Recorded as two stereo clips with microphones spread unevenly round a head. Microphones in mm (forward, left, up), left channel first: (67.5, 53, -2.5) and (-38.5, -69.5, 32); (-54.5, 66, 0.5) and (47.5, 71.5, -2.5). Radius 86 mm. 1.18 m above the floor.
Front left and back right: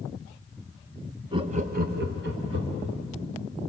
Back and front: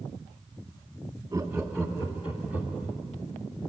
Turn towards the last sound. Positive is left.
turn(degrees=-120)